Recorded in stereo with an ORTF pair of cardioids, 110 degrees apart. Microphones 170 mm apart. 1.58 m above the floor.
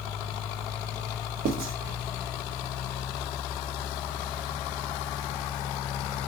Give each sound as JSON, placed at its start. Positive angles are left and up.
{"t": 1.4, "sound": "writing", "azimuth_deg": -65, "distance_m": 0.8}